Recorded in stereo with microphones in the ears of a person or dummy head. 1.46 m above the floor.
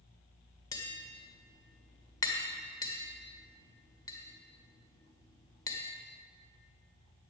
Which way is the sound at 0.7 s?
20° left (ahead or behind).